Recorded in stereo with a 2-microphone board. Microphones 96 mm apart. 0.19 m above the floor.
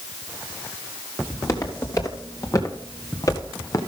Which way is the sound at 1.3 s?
35° left (ahead or behind).